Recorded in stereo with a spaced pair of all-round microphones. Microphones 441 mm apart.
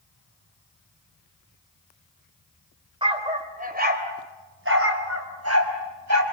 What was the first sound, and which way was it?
A dog barking, 10° right (ahead or behind).